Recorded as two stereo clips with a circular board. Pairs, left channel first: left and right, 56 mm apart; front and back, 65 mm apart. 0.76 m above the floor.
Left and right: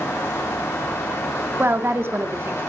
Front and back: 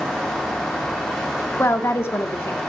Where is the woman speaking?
45° right, 1.5 m.